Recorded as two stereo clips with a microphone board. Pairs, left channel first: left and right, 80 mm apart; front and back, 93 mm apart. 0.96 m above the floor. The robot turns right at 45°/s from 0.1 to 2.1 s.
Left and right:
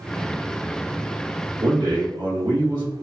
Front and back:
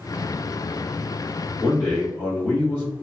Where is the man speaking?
90° right, 1.3 m; by 2.9 s 70° right, 1.3 m.